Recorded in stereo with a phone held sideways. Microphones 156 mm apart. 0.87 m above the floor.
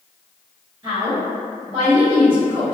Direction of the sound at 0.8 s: 35° right (ahead or behind).